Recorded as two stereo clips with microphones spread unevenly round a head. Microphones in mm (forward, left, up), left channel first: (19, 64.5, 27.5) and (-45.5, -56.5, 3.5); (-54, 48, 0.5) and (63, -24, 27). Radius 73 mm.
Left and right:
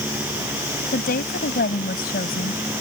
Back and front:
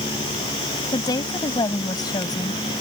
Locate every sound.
0.9 s a woman speaking: 85° left